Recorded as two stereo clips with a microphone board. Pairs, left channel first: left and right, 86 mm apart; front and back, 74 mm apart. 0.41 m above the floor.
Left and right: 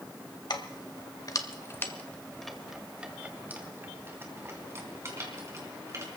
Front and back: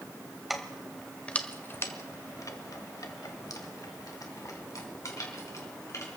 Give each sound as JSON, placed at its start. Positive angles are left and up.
{"t": 0.5, "sound": "keys jangling", "azimuth_deg": 90, "distance_m": 1.5}